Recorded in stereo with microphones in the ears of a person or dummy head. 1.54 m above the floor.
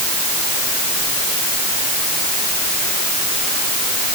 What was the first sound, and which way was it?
Only background noise.